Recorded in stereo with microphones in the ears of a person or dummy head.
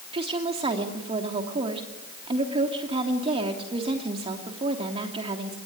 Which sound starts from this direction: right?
A woman speaking, at 0.1 s.